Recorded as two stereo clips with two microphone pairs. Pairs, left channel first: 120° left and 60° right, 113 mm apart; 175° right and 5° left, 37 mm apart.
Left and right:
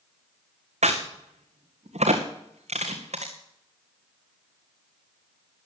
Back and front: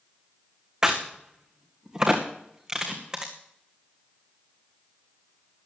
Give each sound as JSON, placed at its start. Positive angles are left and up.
{"t": 0.8, "sound": "a crack", "azimuth_deg": -65, "distance_m": 2.5}